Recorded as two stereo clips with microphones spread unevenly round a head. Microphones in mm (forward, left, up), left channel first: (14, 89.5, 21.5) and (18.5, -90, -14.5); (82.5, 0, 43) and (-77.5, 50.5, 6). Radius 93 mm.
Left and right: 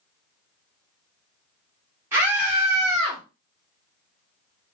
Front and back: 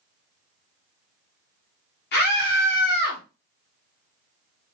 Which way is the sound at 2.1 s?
25° right.